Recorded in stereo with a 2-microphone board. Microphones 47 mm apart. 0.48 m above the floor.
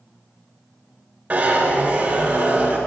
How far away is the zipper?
About 2.5 m.